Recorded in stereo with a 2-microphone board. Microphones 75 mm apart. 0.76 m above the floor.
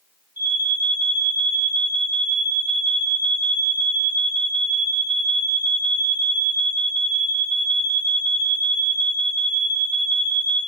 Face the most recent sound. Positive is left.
turn(degrees=-30)  # may be behind; listen again after turning